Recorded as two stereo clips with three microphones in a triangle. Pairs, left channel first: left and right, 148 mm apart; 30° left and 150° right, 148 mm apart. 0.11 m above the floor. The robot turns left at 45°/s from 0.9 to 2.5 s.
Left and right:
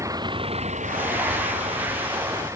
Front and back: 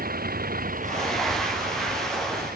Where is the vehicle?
160° right.